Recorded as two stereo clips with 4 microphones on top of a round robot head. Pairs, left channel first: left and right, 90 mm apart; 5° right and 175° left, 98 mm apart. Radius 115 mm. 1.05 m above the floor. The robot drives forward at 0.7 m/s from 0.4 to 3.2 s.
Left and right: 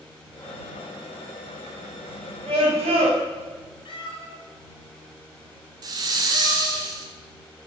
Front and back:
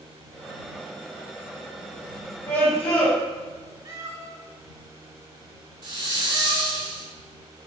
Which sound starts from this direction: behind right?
A hiss, at 5.8 s.